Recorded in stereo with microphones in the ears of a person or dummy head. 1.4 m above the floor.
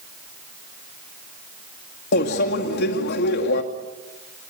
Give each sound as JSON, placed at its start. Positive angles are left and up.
{"t": 2.1, "sound": "a microwave", "side_deg": 55, "distance_m": 2.0}